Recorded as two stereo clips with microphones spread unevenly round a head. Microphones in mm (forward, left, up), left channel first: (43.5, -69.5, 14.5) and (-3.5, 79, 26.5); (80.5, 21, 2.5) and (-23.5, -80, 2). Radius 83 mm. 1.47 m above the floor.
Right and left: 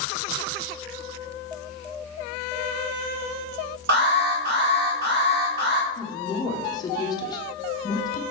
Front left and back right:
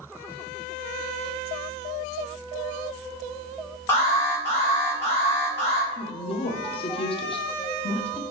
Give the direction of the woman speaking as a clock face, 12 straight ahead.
12 o'clock.